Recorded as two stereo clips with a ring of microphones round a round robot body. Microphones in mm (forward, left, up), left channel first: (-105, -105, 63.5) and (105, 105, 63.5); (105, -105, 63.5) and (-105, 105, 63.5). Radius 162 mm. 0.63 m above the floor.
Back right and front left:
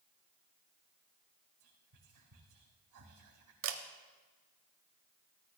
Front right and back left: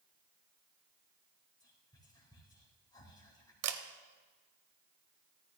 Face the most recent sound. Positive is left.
turn(degrees=95)